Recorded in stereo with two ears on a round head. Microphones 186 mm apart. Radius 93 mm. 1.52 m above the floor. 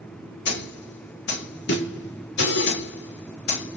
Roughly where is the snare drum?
Left.